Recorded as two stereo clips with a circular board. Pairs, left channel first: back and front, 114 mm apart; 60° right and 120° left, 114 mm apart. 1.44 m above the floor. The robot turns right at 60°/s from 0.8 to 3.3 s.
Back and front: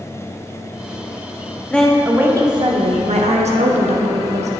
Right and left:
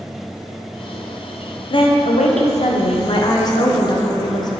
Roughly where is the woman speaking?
Right.